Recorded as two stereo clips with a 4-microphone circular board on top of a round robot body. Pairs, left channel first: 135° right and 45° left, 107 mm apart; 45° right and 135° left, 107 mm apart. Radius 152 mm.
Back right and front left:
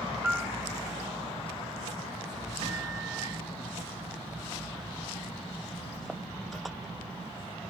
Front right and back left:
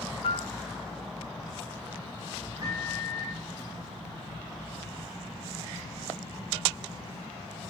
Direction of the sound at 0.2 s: 35° right.